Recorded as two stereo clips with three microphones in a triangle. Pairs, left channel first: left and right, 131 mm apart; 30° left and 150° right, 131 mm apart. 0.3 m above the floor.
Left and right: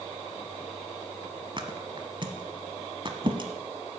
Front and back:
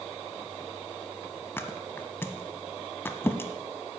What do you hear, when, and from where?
1.6 s a thud: 40° right, 1.0 m